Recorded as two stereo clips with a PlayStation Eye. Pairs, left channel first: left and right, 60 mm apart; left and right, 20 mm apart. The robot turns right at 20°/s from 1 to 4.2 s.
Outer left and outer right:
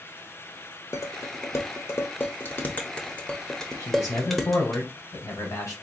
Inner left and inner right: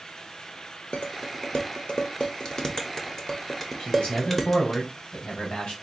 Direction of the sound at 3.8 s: 55° left (ahead or behind).